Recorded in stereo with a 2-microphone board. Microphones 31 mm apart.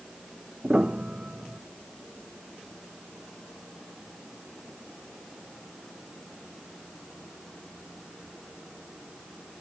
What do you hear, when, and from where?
0.6 s a piano: 35° right (ahead or behind)